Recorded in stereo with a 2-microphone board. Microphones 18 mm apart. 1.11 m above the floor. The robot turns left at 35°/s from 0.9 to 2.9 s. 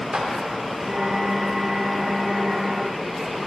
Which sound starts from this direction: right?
A clap, at 0.1 s.